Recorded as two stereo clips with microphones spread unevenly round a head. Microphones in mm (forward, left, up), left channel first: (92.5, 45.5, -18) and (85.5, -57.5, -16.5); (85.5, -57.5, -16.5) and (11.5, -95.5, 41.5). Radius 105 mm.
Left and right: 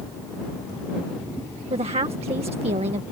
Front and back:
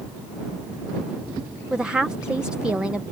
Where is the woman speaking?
70° right.